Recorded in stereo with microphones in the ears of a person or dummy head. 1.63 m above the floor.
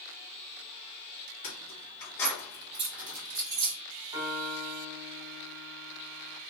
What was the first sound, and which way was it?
Keys jangling, 45° left (ahead or behind).